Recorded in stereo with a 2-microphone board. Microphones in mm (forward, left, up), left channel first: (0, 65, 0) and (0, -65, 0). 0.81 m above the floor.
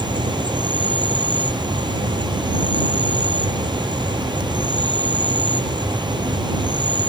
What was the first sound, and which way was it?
An insect, 35° right (ahead or behind).